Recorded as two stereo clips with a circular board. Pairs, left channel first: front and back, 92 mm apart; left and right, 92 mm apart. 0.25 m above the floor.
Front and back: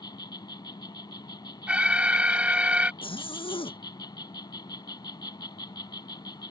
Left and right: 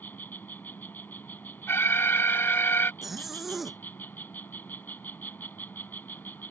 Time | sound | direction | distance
0.0 | an insect | 25° left | ?
1.7 | an alarm | 120° left | ?
3.0 | a zipper | straight ahead | ?